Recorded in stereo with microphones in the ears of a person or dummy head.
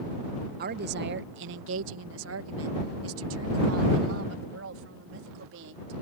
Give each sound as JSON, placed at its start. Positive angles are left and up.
{"t": 0.6, "sound": "a woman speaking", "side_deg": -50}